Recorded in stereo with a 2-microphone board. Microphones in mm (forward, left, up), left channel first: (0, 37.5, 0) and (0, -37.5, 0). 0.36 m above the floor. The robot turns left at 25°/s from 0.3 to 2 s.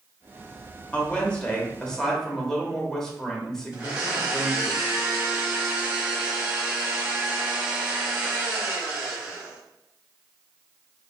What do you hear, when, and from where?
0.9 s a woman speaking: 20° left (ahead or behind), 0.9 m; by 4.7 s 10° left (ahead or behind), 0.9 m
3.7 s a blender: 25° right (ahead or behind), 1.2 m